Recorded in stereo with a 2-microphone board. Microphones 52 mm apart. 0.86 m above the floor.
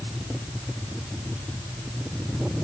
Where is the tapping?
No tapping in this recording.